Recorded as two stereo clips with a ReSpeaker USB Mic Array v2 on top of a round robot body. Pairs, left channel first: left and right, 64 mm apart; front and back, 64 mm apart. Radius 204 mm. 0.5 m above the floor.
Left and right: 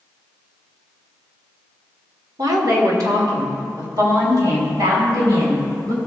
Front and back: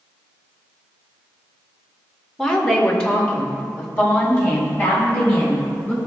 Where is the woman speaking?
80° right, 2 m; by 6.0 s 70° right, 7 m.